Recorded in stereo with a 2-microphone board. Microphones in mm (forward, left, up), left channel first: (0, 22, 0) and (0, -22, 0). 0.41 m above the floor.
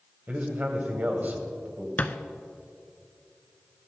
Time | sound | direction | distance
0.3 | a man speaking | 40° right (ahead or behind) | 2 m
2.0 | a thud | 40° left (ahead or behind) | 0.7 m